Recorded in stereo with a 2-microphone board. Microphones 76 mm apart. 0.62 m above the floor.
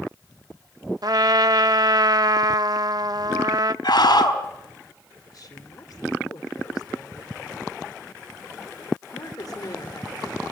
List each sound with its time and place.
1.0 s a trumpet: 55° right (ahead or behind), 0.6 m
3.8 s a scream: 80° left, 4.5 m
5.3 s a woman speaking: 55° left (ahead or behind), 2.5 m